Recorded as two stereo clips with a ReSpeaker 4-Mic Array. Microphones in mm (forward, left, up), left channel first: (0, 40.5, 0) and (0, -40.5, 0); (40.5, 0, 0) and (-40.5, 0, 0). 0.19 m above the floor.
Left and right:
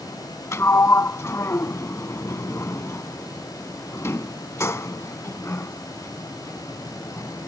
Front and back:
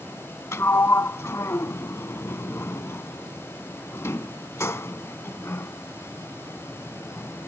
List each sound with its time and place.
0.5 s a sliding door: 45° left